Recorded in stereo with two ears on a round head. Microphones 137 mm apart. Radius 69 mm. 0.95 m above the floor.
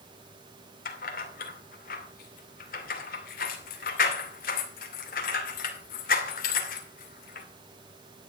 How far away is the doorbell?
I don't hear a doorbell.